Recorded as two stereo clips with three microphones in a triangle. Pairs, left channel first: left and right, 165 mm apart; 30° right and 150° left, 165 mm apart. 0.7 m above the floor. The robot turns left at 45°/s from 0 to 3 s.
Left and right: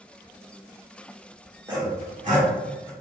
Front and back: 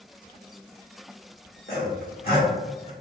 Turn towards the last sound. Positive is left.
turn(degrees=-85)